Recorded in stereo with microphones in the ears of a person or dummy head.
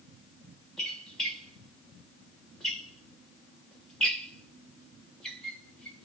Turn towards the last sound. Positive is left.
turn(degrees=0)  # may be behind; listen again after turning